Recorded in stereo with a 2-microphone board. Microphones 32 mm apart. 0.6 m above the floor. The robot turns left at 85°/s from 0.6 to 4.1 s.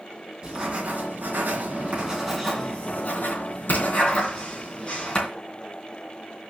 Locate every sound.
0.4 s writing: 30° right, 3.5 m; by 5.3 s 35° left, 3.5 m